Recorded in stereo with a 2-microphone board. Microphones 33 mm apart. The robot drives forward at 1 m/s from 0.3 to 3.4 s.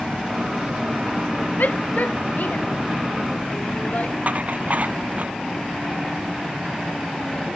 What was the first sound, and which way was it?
A shout, 60° left (ahead or behind).